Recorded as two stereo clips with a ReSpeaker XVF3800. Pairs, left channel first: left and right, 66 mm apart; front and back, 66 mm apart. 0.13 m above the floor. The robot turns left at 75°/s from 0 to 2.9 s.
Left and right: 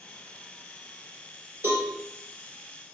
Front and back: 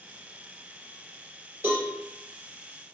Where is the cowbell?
135° right, 2 m; by 1.9 s 150° right, 2 m.